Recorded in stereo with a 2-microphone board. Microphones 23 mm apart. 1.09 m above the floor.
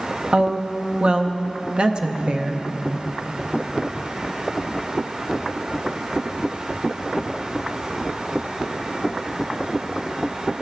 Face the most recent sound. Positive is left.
turn(degrees=-40)  # may be behind; listen again after turning